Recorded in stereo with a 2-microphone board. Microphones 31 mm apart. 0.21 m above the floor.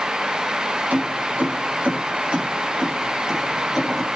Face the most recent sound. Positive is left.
turn(degrees=0)  # may be behind; listen again after turning